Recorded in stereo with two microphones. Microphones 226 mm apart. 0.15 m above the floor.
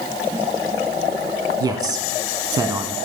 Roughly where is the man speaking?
Centre.